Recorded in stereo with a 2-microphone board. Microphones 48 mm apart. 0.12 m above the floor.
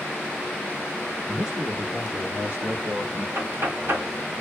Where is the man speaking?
15° right (ahead or behind), 1.5 m; by 3.2 s 55° right (ahead or behind), 2.5 m.